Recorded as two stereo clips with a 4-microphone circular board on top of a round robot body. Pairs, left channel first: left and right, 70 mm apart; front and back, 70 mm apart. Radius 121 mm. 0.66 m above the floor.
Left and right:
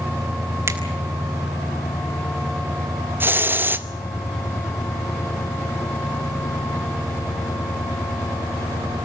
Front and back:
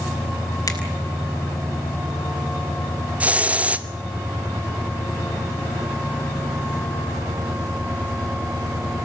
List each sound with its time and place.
0.7 s a finger snap: 40° right, 4 m
3.2 s a hiss: 125° right, 1.1 m